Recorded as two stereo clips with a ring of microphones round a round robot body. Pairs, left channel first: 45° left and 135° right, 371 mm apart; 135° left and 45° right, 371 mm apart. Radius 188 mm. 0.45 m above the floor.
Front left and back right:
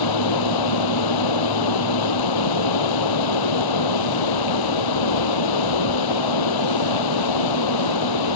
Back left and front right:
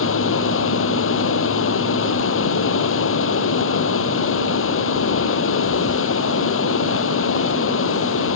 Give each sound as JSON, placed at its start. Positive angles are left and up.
{"t": 0.0, "sound": "running water", "azimuth_deg": 75}